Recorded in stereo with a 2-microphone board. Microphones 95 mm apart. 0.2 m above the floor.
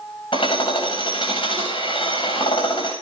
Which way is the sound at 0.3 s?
75° left (ahead or behind).